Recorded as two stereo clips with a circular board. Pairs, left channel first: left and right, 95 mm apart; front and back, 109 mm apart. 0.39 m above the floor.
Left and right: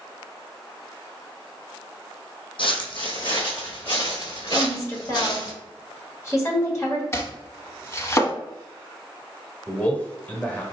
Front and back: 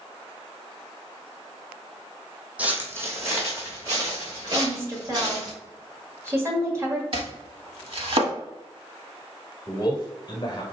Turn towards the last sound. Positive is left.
turn(degrees=25)